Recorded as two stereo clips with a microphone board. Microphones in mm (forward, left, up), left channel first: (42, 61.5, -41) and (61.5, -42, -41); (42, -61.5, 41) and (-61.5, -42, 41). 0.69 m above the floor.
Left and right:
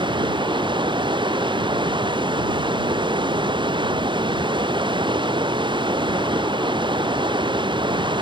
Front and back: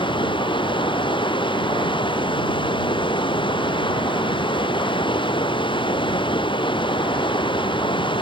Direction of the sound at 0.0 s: 45° right.